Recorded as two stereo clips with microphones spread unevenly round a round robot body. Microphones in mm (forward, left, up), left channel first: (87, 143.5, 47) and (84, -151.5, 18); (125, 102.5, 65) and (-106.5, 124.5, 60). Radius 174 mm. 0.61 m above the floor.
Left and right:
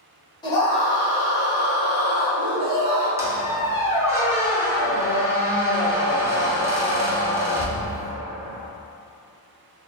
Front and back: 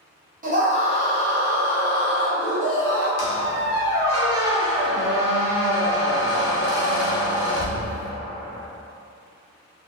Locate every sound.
0.4 s a scream: 165° left, 0.8 m; by 3.1 s 90° right, 1.4 m
3.2 s a squeak: 10° right, 0.7 m